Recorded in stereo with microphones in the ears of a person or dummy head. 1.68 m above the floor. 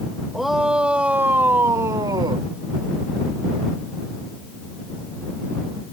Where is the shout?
5° right (ahead or behind); by 2.5 s 25° right (ahead or behind).